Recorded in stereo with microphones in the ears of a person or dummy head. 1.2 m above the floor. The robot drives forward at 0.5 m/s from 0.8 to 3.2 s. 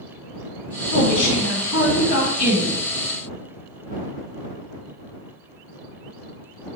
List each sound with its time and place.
0.9 s a woman speaking: 65° left (ahead or behind), 1.9 m; by 2.8 s 80° left, 1.8 m